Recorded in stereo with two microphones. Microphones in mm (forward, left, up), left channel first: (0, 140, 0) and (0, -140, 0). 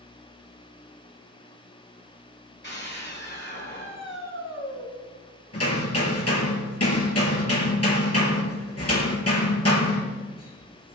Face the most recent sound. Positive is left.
turn(degrees=60)  # may be behind; listen again after turning